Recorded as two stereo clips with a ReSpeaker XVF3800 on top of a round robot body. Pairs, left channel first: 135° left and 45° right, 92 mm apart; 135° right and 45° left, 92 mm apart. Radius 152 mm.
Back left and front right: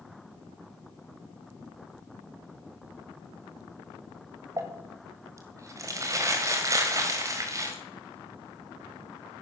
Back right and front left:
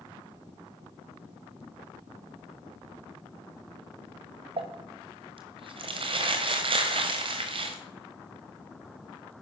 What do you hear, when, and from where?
4.6 s crumpling: 15° left, 1.5 m